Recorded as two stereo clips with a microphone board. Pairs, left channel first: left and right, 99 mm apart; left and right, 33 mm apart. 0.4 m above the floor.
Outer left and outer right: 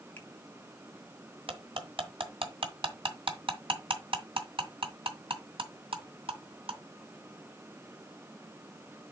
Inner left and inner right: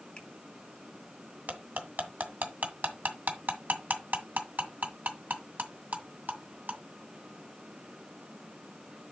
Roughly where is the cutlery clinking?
Right.